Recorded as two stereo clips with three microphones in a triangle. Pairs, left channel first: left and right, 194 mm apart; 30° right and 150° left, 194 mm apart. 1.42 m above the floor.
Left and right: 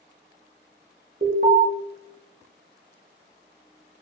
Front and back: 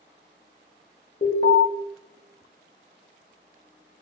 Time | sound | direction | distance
1.2 | an alarm | 60° right | 0.7 m